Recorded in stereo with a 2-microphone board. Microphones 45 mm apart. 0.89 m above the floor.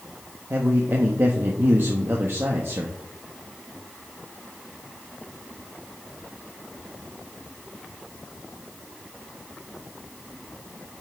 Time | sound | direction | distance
0.5 | a man speaking | 55° right (ahead or behind) | 1.1 m